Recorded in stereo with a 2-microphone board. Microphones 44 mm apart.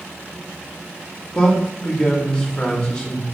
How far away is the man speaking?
About 0.8 m.